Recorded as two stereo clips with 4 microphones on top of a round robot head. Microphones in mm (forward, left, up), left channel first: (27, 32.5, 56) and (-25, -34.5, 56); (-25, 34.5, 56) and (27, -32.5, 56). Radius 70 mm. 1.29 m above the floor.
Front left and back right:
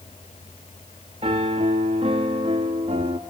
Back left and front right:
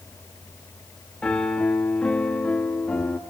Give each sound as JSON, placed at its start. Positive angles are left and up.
{"t": 1.2, "sound": "a piano", "azimuth_deg": -155, "distance_m": 1.0}